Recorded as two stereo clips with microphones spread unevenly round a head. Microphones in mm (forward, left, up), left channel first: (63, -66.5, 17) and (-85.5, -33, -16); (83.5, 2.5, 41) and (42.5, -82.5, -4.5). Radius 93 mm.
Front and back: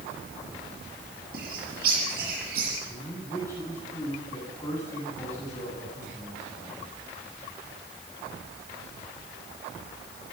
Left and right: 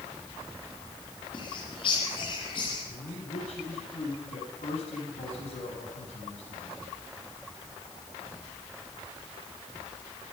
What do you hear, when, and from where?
1.3 s a bird: 120° left, 6.5 m
2.9 s a man speaking: 65° left, 9.5 m